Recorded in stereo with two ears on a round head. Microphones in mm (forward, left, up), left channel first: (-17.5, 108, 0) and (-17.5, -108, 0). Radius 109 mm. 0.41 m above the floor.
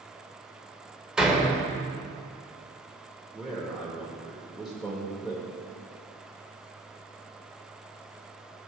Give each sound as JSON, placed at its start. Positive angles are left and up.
{"t": 1.2, "sound": "a door slam", "side_deg": -5, "distance_m": 0.9}
{"t": 3.3, "sound": "a man speaking", "side_deg": 0, "distance_m": 1.4}